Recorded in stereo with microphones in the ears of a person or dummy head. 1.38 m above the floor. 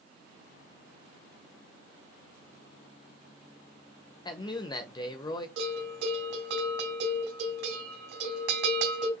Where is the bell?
55° right (ahead or behind), 3 m.